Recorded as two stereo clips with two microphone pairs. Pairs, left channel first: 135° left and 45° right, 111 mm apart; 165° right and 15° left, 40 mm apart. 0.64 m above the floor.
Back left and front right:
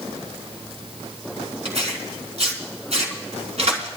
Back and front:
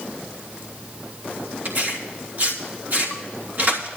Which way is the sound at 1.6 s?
20° right.